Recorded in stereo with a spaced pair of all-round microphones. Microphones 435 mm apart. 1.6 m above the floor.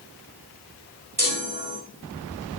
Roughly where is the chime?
Right.